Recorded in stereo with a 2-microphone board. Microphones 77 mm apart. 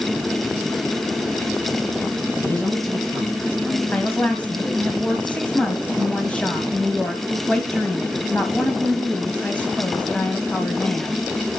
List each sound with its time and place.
2.4 s a man speaking: 20° left (ahead or behind), 6.5 m
3.9 s a woman speaking: 15° left (ahead or behind), 1.3 m